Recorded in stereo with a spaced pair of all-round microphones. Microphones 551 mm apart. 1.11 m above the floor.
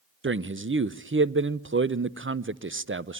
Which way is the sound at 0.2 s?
25° right (ahead or behind).